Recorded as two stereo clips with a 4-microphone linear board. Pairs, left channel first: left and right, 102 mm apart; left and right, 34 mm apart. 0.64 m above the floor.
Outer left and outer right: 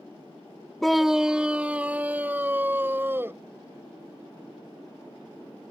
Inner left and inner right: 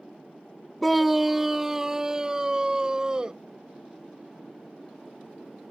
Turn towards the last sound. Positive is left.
turn(degrees=-20)  # may be behind; listen again after turning